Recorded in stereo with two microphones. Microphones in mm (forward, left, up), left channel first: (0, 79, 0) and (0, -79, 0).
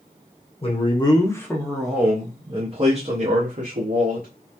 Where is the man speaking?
40° left (ahead or behind), 0.9 m; by 4.3 s 60° right (ahead or behind), 1.4 m.